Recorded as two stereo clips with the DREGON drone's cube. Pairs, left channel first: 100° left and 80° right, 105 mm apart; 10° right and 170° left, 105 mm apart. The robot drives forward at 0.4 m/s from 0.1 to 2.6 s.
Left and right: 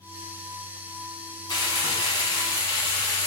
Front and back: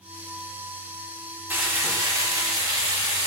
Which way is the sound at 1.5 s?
105° left.